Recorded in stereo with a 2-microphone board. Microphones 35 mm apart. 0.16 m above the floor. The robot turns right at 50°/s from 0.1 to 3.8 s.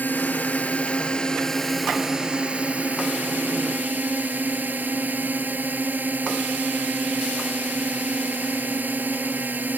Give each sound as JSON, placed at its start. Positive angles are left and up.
{"t": 0.0, "sound": "a drone", "azimuth_deg": 95}